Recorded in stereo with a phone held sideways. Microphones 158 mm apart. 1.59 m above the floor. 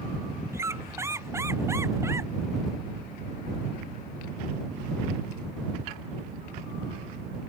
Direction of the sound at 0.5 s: 15° right (ahead or behind).